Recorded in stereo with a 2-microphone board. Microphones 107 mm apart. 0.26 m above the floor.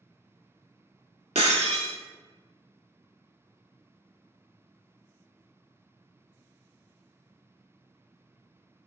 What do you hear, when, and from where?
1.4 s breaking glass: 85° right, 0.6 m